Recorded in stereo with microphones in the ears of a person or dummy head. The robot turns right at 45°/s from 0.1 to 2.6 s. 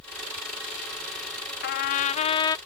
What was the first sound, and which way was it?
A trumpet, 115° left.